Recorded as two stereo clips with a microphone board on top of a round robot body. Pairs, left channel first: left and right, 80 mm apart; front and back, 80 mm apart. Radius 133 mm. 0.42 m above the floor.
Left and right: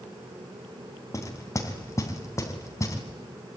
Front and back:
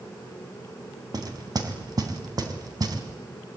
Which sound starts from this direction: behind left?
Knocking, at 1.1 s.